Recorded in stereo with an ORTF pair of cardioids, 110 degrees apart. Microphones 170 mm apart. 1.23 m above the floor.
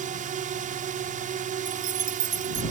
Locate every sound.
0.0 s a drone: 55° right
1.6 s keys jangling: 50° right